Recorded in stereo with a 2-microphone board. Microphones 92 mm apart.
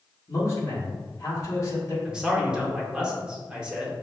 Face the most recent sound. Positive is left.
turn(degrees=-10)  # may be behind; listen again after turning